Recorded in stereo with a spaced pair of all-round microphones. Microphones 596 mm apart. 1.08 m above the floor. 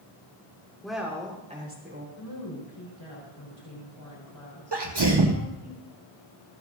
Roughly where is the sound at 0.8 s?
Centre.